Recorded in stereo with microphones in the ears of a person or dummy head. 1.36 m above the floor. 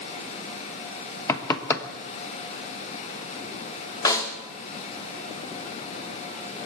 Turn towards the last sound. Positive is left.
turn(degrees=20)  # may be behind; listen again after turning